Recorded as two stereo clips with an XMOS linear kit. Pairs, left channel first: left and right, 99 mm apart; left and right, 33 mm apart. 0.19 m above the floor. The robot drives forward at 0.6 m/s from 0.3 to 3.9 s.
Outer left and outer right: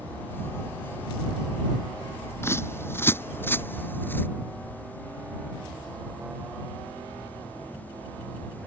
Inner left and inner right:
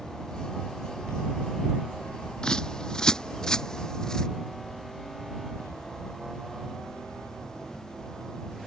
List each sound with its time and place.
2.4 s a bird: 25° left (ahead or behind); by 4.3 s 20° left (ahead or behind)